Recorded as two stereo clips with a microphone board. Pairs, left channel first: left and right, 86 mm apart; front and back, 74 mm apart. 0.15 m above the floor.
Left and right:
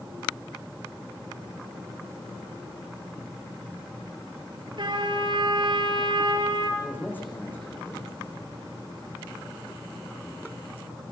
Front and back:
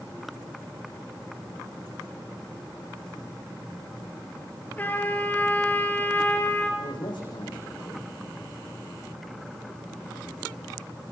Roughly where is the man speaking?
Ahead.